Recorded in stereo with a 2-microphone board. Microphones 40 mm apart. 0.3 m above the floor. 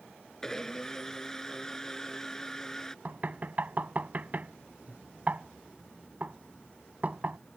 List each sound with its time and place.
0.4 s a blender: 10° left (ahead or behind)
3.0 s knocking: 45° right (ahead or behind)